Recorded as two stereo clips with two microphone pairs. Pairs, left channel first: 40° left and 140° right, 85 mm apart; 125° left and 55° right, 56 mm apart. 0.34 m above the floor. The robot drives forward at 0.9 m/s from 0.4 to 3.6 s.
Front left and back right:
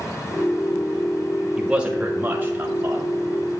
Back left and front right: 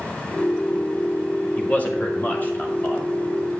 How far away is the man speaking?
About 1.5 m.